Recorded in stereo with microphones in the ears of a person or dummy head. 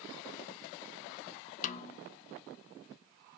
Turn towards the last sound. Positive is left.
turn(degrees=40)  # may be behind; listen again after turning